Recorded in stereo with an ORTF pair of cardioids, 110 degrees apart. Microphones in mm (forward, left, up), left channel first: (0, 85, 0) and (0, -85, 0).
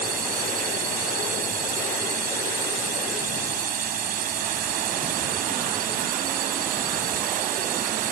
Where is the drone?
55° right.